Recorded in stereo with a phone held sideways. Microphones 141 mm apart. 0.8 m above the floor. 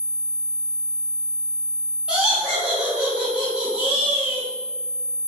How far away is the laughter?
About 1.3 m.